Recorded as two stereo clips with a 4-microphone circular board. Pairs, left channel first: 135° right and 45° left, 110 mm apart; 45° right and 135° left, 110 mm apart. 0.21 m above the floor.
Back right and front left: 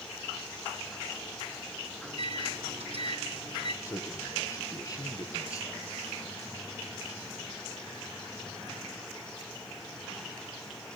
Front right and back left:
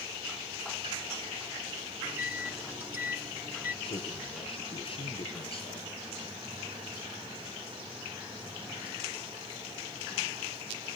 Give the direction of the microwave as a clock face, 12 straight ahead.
10 o'clock.